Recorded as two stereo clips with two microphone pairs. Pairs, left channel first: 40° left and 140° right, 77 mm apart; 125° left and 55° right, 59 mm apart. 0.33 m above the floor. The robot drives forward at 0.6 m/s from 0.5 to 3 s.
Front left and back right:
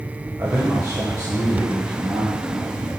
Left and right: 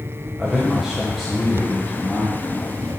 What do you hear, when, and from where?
0.4 s a man speaking: 130° right, 1.4 m; by 2.9 s 160° right, 2.5 m